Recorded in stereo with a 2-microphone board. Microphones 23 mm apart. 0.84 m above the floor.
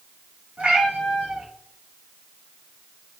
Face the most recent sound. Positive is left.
turn(degrees=-70)  # may be behind; listen again after turning